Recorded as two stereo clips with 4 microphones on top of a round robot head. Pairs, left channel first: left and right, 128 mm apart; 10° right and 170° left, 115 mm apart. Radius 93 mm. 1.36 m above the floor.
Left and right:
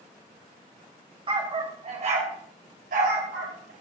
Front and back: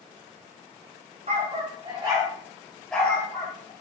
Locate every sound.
1.3 s a dog barking: 135° right, 3 m; by 3.7 s 75° right, 2.5 m